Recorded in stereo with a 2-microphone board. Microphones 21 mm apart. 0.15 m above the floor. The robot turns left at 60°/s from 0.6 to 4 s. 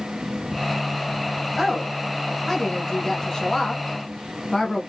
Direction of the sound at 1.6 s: Centre (ahead or behind).